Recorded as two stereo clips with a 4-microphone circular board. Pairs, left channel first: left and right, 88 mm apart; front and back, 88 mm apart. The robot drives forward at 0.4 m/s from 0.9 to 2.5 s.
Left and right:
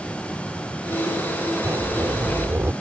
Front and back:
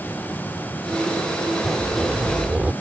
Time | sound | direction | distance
1.6 | a zipper | 90° right | ?